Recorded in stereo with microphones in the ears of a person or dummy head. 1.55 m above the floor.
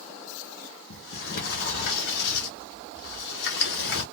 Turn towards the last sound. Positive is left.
turn(degrees=65)  # may be behind; listen again after turning